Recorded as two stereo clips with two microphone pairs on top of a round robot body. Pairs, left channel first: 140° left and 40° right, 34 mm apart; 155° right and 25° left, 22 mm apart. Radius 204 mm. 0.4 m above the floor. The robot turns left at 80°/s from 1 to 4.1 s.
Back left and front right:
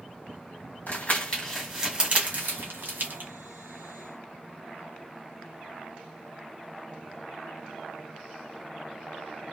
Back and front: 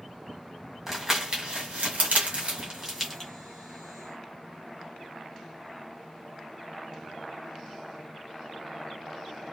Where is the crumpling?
100° left, 1.5 m; by 3.3 s 85° right, 1.5 m.